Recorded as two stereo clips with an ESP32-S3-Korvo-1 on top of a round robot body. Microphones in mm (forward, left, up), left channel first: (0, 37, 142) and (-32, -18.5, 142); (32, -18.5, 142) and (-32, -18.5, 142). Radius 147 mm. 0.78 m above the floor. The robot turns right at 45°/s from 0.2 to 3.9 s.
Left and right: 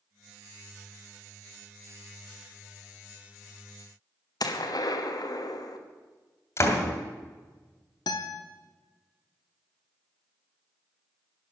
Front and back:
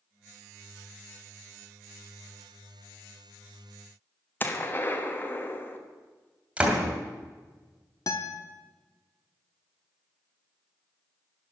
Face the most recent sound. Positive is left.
turn(degrees=40)